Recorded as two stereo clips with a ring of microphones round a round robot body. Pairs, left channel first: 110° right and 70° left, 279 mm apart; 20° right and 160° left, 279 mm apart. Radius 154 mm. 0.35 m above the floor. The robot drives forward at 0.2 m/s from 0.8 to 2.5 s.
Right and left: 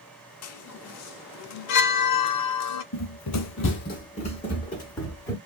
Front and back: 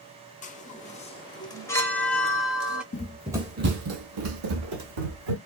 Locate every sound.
0.4 s a chime: 85° right, 0.7 m; by 2.8 s 115° right, 0.7 m
2.9 s running footsteps: 85° right, 0.5 m; by 5.4 s 165° left, 1.5 m